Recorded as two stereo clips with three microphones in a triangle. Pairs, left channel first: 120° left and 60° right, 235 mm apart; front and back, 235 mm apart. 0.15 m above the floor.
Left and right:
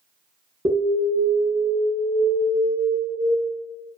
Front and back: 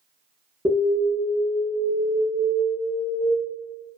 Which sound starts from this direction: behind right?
An alarm, at 0.7 s.